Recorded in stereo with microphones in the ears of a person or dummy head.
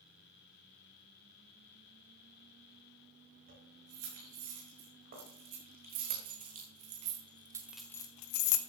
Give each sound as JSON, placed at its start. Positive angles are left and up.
{"t": 3.5, "sound": "keys jangling", "side_deg": -50, "distance_m": 6.5}